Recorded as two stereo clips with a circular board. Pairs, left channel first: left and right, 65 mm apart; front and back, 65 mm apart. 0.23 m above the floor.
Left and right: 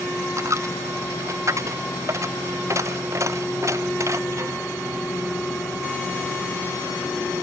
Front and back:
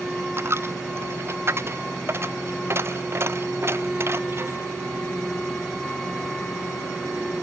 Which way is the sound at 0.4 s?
130° right.